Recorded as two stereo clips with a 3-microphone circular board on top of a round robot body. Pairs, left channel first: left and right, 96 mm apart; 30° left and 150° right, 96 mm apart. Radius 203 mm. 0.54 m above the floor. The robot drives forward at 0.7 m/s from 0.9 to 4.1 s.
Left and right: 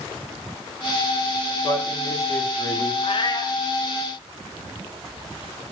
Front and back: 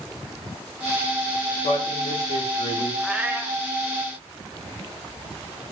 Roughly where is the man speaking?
Ahead left.